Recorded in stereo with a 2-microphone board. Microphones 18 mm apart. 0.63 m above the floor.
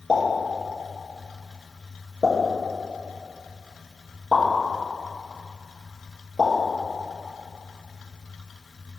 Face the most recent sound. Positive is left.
turn(degrees=45)  # may be behind; listen again after turning